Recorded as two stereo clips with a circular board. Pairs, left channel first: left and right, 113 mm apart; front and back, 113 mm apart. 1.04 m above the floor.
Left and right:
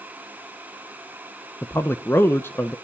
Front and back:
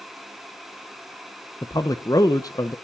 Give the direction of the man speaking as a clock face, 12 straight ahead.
11 o'clock.